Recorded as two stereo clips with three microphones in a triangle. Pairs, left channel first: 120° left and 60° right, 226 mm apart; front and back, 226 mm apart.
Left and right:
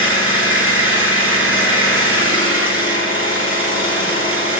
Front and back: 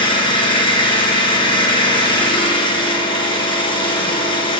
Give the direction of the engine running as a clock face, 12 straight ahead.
2 o'clock.